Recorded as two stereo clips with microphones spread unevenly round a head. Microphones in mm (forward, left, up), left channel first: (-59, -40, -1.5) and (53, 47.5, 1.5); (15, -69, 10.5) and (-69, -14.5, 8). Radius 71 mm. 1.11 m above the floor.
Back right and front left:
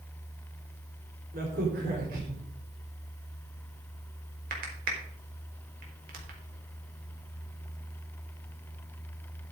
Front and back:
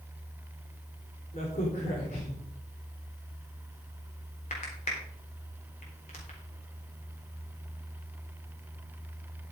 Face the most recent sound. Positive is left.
turn(degrees=5)